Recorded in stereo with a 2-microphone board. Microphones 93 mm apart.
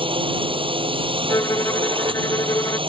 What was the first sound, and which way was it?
A drone, 65° right (ahead or behind).